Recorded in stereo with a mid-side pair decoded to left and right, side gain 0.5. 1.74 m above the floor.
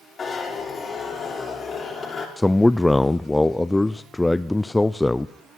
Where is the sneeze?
I don't hear a sneeze.